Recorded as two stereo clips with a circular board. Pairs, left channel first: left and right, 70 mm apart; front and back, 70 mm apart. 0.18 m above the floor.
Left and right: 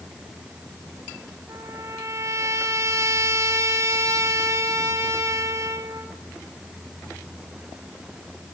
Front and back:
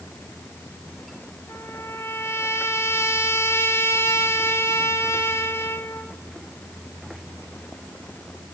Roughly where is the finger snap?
No finger snap in this recording.